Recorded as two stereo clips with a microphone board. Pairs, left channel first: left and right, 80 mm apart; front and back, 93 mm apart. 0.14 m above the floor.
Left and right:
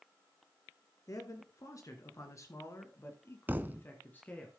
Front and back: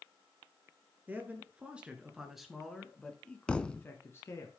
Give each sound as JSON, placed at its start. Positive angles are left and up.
{"t": 1.1, "sound": "a man speaking", "azimuth_deg": 115, "distance_m": 2.5}
{"t": 3.5, "sound": "a thud", "azimuth_deg": -65, "distance_m": 0.5}